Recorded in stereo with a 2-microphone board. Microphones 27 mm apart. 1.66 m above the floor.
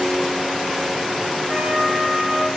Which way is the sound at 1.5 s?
65° right (ahead or behind).